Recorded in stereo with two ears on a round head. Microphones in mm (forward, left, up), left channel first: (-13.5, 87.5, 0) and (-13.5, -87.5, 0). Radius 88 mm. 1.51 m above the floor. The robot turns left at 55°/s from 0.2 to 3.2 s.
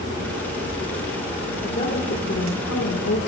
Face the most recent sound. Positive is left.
turn(degrees=65)